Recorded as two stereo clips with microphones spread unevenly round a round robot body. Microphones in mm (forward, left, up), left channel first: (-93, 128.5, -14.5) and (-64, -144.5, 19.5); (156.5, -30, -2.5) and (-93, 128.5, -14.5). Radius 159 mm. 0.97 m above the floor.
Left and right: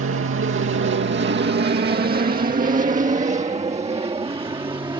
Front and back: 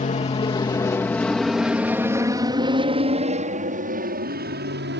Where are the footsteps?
I don't hear footsteps.